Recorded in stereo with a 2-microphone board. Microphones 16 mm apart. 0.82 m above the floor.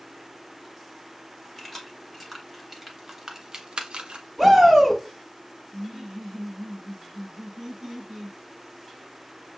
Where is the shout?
35° right (ahead or behind), 3 m.